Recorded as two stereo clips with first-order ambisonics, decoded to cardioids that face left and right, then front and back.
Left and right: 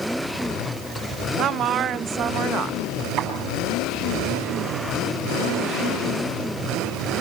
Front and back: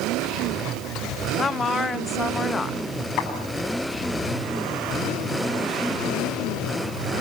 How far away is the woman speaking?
About 0.6 m.